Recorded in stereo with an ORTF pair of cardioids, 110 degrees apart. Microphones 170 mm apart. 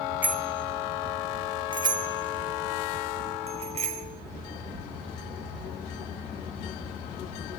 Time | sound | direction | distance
0.2 | a bicycle bell | 10° right | 2.5 m